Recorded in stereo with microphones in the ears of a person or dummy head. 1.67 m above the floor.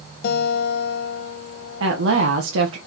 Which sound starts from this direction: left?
A guitar, at 0.2 s.